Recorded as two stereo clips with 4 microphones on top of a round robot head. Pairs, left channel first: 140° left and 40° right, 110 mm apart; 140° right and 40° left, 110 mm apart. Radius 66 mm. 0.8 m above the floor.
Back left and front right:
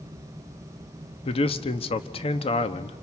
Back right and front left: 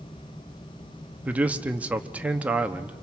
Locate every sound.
1.2 s a man speaking: 115° left, 1.1 m